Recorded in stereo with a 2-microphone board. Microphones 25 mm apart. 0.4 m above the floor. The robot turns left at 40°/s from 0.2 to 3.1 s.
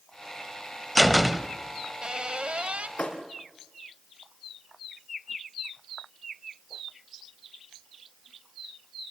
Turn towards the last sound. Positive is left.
turn(degrees=75)  # may be behind; listen again after turning